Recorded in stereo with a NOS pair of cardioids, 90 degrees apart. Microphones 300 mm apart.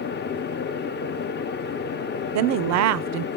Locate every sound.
0.0 s a fan: 35° left, 0.7 m
2.4 s a woman speaking: 65° right, 0.5 m